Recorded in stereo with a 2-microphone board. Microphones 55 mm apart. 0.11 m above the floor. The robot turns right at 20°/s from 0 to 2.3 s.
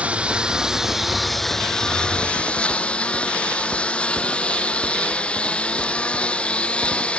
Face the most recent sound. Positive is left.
turn(degrees=20)